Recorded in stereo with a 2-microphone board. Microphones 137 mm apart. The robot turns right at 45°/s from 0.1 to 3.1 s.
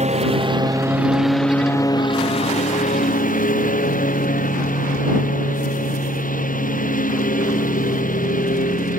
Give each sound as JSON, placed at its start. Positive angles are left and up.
{"t": 0.0, "sound": "a lawn mower", "azimuth_deg": -55}